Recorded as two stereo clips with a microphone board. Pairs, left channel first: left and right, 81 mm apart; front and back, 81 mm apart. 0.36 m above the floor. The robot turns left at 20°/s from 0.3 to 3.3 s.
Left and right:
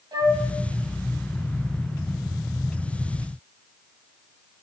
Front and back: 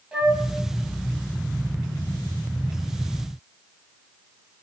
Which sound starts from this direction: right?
A flute, at 0.1 s.